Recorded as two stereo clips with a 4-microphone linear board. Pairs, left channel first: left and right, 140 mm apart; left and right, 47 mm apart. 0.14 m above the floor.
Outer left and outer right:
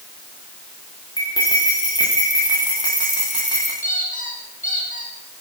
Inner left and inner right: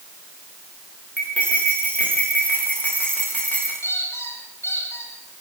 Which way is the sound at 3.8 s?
70° left (ahead or behind).